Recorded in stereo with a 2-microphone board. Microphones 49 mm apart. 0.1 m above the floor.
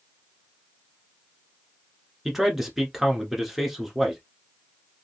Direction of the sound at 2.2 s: 5° right (ahead or behind).